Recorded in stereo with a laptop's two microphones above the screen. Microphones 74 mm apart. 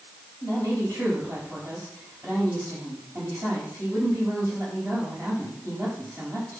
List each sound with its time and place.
0.4 s a woman speaking: 40° right (ahead or behind), 5 m